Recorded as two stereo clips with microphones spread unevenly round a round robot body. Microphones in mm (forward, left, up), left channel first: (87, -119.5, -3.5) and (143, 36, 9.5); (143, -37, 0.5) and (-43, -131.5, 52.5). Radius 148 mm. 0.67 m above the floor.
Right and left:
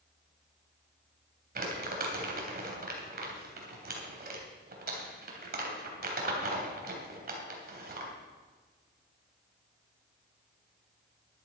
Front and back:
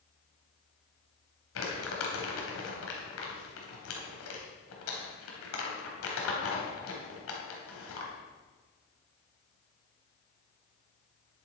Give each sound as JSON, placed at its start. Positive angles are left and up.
{"t": 1.6, "sound": "crumpling", "azimuth_deg": 45, "distance_m": 3.0}